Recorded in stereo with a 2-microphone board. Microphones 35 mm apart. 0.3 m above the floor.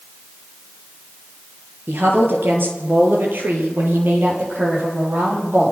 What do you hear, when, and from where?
1.9 s a woman speaking: 80° right, 6 m; by 5.7 s 75° right (ahead or behind), 9.5 m